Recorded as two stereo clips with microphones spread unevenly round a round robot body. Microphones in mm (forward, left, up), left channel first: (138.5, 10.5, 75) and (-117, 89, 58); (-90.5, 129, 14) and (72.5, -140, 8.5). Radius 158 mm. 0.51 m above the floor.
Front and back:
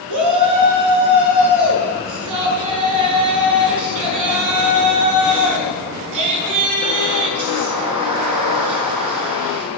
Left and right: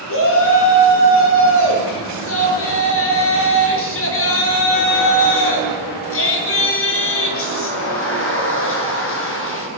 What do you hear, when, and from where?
0.1 s a shout: 170° left, 7 m